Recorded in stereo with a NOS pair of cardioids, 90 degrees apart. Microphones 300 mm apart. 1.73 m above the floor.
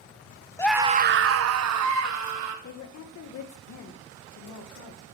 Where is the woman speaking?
65° left, 1.7 m.